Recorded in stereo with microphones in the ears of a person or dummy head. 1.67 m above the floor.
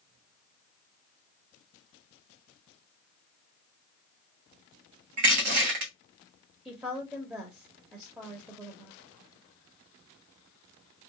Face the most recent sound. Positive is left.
turn(degrees=-10)  # may be behind; listen again after turning